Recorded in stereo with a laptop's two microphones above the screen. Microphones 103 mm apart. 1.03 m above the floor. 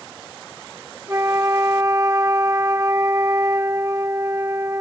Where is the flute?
30° right (ahead or behind).